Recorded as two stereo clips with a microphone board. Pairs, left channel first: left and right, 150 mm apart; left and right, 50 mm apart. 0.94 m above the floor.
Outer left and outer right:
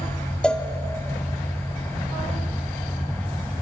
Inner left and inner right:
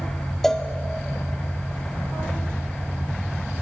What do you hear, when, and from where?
0.4 s a cowbell: 5° left (ahead or behind), 0.5 m